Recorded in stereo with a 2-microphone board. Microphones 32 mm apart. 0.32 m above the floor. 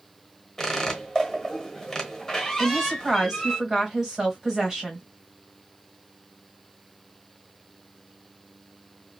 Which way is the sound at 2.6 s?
25° right (ahead or behind).